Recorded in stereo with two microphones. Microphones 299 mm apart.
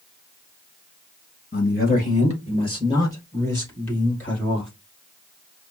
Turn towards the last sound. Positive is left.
turn(degrees=0)  # may be behind; listen again after turning